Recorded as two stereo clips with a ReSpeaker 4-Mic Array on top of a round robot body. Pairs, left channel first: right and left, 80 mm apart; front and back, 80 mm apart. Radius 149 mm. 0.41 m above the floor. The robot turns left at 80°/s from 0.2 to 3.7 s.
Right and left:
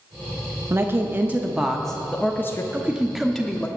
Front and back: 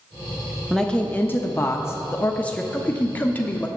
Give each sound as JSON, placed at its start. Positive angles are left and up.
{"t": 0.7, "sound": "a woman speaking", "azimuth_deg": 85, "distance_m": 0.9}
{"t": 2.7, "sound": "a man speaking", "azimuth_deg": 45, "distance_m": 1.1}